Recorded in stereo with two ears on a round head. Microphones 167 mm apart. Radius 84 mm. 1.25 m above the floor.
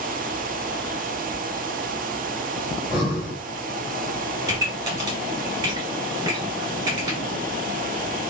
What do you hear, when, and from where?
2.7 s breathing: centre (ahead or behind), 2.5 m
4.5 s a pop: 20° right (ahead or behind), 1.9 m